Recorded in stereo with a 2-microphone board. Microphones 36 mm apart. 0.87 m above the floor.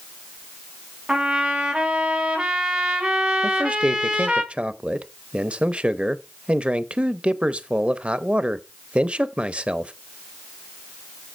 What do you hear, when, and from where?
1.1 s a trumpet: 30° right (ahead or behind), 3 m
3.4 s a man speaking: 30° right (ahead or behind), 0.7 m